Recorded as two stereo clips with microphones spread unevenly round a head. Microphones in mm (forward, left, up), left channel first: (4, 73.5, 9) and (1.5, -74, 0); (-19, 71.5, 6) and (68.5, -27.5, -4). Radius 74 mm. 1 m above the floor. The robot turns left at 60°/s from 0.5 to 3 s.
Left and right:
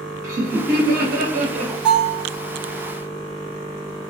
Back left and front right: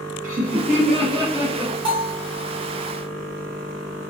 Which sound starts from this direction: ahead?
A bell, at 1.9 s.